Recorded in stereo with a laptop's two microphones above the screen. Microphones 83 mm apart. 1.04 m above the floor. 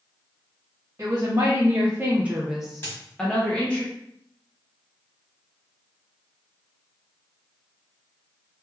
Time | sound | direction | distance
1.0 | a woman speaking | 35° right (ahead or behind) | 0.8 m
2.8 | a dropped coin | 30° left (ahead or behind) | 1.3 m